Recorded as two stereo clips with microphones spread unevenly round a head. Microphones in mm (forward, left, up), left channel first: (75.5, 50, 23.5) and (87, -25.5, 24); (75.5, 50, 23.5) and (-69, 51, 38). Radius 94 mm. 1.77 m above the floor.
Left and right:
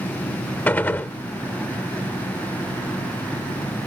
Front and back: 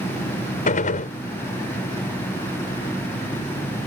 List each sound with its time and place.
0.7 s a gunshot: 30° left